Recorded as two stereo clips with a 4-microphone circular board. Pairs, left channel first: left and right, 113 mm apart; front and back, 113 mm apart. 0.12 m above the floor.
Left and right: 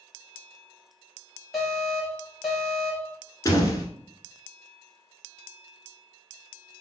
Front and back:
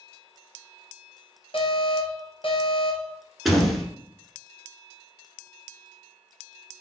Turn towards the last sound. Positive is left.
turn(degrees=90)